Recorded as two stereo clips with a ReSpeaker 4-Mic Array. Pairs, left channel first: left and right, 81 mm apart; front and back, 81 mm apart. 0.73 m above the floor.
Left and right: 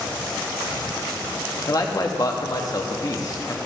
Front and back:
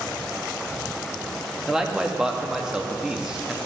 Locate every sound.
1.7 s a man speaking: 100° left, 1.0 m